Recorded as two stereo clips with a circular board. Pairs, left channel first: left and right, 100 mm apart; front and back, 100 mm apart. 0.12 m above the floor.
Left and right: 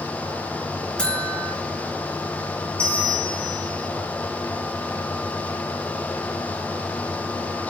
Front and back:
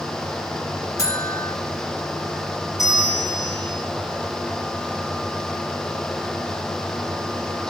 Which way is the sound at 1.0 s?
20° left.